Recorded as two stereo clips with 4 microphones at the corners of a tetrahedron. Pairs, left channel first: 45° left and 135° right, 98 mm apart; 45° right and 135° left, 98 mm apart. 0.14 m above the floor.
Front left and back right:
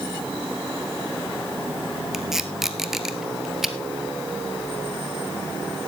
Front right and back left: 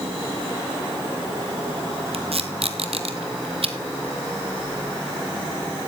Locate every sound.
2.1 s tape being pulled: 140° left, 1.3 m